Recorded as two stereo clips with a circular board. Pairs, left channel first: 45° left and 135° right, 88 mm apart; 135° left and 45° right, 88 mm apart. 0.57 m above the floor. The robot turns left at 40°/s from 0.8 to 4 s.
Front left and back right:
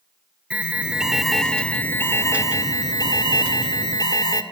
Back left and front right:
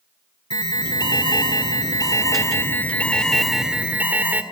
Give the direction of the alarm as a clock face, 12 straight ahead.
7 o'clock.